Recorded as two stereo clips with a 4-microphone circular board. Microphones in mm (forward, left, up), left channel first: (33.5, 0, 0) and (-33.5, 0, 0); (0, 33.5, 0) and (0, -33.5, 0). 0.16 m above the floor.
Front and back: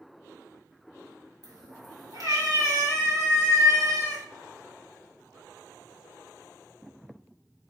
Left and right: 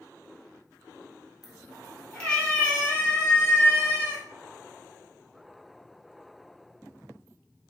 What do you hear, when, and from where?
1.4 s a cat meowing: straight behind, 1.0 m; by 4.2 s 150° left, 2.5 m